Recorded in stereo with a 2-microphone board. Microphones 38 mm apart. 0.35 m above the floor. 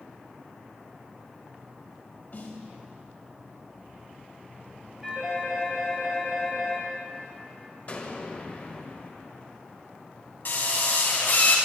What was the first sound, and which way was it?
A snare drum, 50° left (ahead or behind).